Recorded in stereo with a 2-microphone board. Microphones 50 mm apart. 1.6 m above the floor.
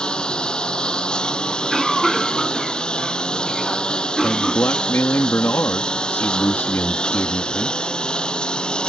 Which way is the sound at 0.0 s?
15° left (ahead or behind).